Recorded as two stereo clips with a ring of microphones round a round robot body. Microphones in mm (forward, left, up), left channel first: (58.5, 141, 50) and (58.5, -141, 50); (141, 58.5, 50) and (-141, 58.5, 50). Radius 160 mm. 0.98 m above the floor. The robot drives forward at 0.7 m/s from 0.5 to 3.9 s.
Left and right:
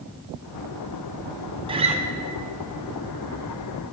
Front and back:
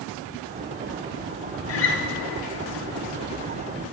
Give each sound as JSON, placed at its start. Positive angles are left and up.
{"t": 1.7, "sound": "a guitar", "azimuth_deg": -20, "distance_m": 0.7}